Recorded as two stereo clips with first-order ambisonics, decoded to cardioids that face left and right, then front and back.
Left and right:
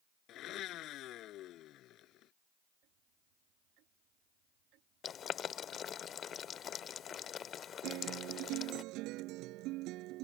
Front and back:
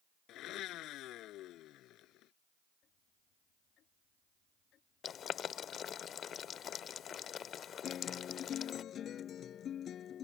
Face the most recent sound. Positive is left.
turn(degrees=-55)